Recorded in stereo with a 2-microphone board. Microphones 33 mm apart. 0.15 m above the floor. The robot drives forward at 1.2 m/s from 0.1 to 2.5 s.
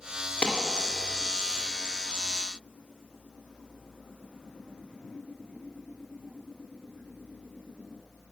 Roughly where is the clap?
Left.